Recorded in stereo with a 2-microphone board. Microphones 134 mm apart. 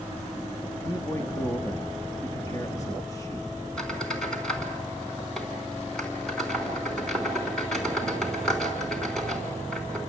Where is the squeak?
5° left (ahead or behind), 4 m.